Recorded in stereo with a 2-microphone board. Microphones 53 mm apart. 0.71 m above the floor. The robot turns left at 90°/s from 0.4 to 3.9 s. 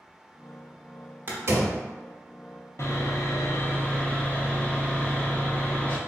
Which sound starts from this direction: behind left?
Sawing, at 2.8 s.